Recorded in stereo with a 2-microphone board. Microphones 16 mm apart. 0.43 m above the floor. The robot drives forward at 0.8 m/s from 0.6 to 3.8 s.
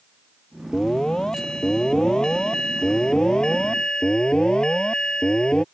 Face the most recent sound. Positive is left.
turn(degrees=55)  # may be behind; listen again after turning